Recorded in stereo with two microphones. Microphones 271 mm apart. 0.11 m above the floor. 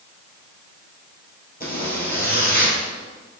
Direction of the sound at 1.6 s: 35° left (ahead or behind).